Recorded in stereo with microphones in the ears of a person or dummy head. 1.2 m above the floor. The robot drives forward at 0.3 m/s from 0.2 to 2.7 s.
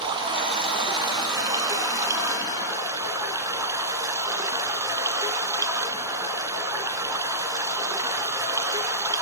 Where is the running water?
25° right (ahead or behind), 1.4 m; by 9.2 s 20° right (ahead or behind), 1.9 m.